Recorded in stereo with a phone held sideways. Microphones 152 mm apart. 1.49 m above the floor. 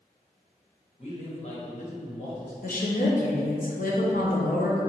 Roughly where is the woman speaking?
Left.